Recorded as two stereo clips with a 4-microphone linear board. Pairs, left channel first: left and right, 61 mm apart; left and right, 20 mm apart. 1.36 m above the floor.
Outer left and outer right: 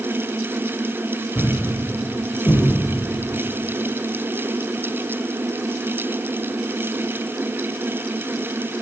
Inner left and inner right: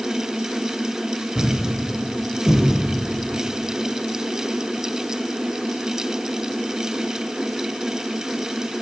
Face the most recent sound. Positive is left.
turn(degrees=50)  # may be behind; listen again after turning